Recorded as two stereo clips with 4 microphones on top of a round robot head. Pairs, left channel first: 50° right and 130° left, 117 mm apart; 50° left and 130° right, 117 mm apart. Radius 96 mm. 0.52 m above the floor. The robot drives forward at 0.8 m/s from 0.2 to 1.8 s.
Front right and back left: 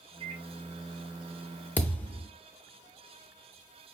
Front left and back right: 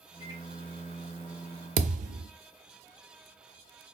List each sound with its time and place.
0.2 s a microwave: 175° left, 2.5 m
1.8 s a thud: 130° right, 0.6 m